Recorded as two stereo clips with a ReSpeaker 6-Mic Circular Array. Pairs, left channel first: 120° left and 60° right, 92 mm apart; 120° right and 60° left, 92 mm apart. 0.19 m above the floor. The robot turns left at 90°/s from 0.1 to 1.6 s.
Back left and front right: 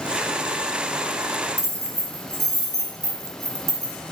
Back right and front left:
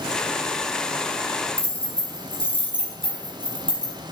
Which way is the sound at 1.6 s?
120° right.